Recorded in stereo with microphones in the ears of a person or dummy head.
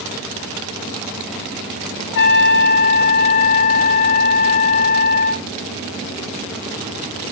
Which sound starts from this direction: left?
A trumpet, at 2.1 s.